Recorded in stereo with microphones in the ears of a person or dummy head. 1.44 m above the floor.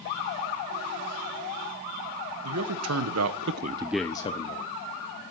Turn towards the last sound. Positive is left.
turn(degrees=40)  # may be behind; listen again after turning